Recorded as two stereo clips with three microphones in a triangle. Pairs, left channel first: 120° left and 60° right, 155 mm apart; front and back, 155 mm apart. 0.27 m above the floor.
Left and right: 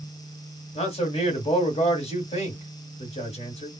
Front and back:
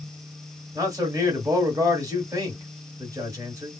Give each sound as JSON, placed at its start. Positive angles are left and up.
{"t": 0.8, "sound": "a man speaking", "azimuth_deg": 125, "distance_m": 1.4}